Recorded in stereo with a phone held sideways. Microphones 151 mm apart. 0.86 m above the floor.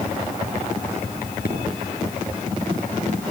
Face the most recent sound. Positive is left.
turn(degrees=85)